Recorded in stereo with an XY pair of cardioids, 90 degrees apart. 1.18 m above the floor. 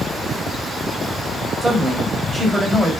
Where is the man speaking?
20° right, 6 m.